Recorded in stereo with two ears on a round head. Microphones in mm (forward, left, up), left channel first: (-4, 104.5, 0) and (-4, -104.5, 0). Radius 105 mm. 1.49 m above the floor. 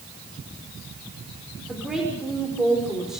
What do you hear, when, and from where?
1.7 s a woman speaking: centre (ahead or behind), 5.5 m